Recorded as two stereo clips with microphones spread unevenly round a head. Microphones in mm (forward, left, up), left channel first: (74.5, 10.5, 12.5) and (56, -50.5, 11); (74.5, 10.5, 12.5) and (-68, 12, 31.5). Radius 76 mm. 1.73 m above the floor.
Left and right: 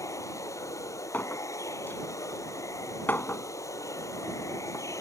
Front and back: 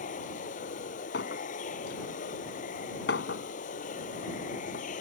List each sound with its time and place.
0.0 s running water: 35° left
1.1 s a clink: 15° left